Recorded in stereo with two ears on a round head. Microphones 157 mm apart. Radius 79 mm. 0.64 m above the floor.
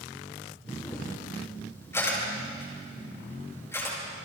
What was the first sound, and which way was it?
A camera shutter, 15° left (ahead or behind).